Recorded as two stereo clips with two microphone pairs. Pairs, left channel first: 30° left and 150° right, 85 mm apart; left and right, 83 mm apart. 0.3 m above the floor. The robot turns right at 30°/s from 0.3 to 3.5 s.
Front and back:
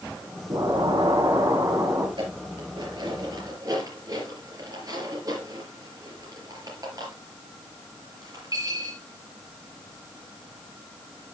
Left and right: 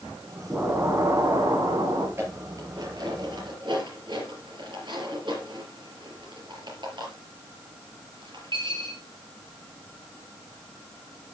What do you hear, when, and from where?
0.5 s an explosion: 155° right, 3 m; by 2.1 s 110° right, 3 m
2.2 s dishes clattering: 150° right, 4.5 m; by 9.0 s 110° right, 4.5 m